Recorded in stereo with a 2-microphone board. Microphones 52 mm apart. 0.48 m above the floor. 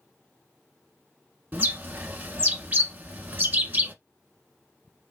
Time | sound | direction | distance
1.5 | a bird | 35° right (ahead or behind) | 0.8 m